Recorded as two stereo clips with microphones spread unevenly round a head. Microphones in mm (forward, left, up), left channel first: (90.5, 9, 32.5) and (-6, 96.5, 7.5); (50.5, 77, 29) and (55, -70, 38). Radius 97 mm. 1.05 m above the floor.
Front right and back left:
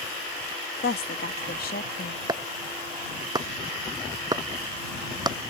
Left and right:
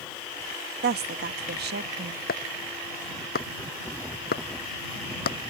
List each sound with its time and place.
0.8 s a woman speaking: 80° right
2.3 s chopping: 75° left